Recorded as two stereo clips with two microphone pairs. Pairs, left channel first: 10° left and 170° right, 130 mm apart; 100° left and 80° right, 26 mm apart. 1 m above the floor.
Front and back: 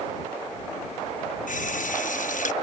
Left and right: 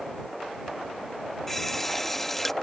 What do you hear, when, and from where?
1.5 s a running tap: 15° left